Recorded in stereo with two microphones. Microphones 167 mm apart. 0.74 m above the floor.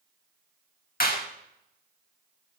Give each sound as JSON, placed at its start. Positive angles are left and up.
{"t": 1.0, "sound": "a clap", "side_deg": 65, "distance_m": 1.3}